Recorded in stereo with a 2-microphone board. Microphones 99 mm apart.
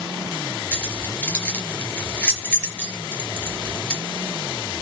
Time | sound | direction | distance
0.7 | keys jangling | 10° left (ahead or behind) | 4 m